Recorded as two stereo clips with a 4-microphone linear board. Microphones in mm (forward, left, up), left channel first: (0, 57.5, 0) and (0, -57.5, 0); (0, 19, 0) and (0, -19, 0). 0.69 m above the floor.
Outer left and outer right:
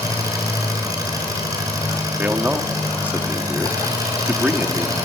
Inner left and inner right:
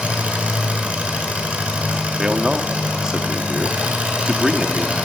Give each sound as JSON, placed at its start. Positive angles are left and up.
{"t": 0.0, "sound": "an engine running", "side_deg": -30, "distance_m": 6.5}
{"t": 2.2, "sound": "a man speaking", "side_deg": -15, "distance_m": 1.5}